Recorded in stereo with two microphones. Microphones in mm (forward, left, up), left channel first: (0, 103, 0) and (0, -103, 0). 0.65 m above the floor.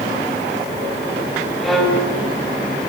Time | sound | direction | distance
1.6 | a violin | centre (ahead or behind) | 5 m